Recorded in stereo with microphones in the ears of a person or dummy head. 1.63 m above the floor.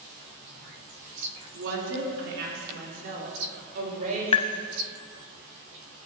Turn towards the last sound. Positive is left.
turn(degrees=30)  # may be behind; listen again after turning